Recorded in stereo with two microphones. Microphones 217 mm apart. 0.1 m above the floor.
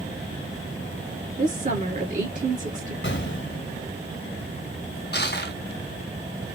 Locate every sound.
1.4 s a woman speaking: 40° right (ahead or behind), 1.5 m
3.0 s an explosion: 60° left (ahead or behind), 0.6 m
5.1 s crushing: 55° left (ahead or behind), 0.6 m